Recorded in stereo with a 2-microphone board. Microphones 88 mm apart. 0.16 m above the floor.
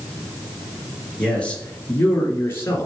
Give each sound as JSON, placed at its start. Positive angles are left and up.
{"t": 1.2, "sound": "a man speaking", "side_deg": 10, "distance_m": 3.0}